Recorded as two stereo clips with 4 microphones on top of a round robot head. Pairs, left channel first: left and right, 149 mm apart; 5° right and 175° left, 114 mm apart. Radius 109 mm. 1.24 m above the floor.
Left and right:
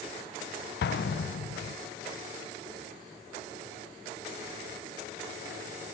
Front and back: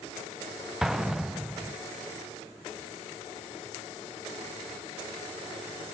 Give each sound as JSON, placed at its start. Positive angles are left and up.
{"t": 0.8, "sound": "an explosion", "azimuth_deg": 90, "distance_m": 0.6}